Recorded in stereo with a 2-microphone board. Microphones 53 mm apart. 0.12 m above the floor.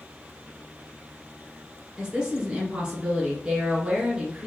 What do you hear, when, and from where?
2.0 s a woman speaking: 15° right (ahead or behind), 1.6 m